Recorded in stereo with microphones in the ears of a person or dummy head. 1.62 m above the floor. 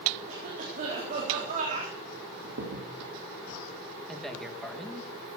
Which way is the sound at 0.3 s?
40° right (ahead or behind).